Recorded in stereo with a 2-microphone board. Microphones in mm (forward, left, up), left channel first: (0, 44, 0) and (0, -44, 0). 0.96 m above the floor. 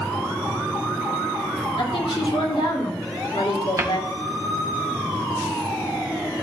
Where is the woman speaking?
75° left (ahead or behind), 2 m.